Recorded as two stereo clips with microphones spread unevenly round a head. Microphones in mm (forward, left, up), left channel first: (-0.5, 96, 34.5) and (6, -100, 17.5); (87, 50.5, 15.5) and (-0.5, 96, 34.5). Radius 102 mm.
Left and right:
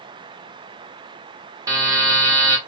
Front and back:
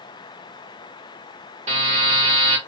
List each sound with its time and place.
1.7 s a buzzer: 165° right, 0.7 m